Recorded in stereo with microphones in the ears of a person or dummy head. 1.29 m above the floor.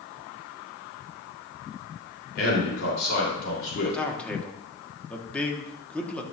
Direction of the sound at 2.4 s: 55° left (ahead or behind).